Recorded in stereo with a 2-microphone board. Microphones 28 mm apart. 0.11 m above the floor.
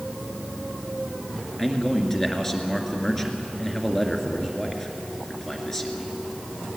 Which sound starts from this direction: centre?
A man speaking, at 1.6 s.